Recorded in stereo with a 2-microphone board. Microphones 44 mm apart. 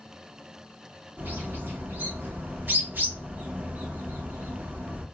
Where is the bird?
50° right (ahead or behind), 1.0 m.